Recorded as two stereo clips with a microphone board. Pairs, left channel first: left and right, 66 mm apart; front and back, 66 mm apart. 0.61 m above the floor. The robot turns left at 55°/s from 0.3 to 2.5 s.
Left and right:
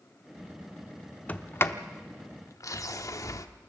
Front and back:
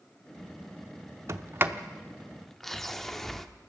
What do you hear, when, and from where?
1.3 s a sliding door: 150° left, 0.9 m; by 3.5 s 85° left, 0.9 m